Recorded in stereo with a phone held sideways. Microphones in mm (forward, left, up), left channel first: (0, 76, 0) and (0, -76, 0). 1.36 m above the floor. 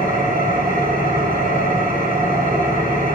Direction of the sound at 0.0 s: 80° right.